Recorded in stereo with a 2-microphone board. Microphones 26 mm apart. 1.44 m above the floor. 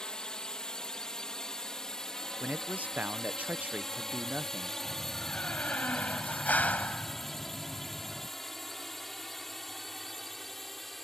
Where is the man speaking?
70° right (ahead or behind).